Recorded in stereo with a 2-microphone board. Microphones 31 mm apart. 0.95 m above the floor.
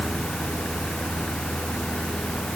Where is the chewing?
No chewing in this recording.